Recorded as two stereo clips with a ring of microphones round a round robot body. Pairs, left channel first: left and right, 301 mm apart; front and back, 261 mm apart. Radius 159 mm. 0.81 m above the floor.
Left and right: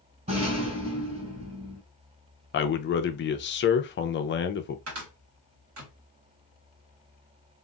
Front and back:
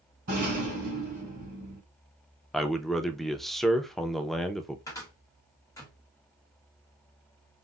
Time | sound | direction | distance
0.3 | a rattle | 155° right | 2.5 m
2.5 | a man speaking | 90° left | 0.5 m
4.9 | a cupboard door | 75° right | 1.2 m